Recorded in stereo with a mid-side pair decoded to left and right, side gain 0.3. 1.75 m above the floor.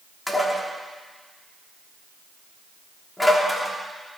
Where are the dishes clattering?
15° left, 3 m.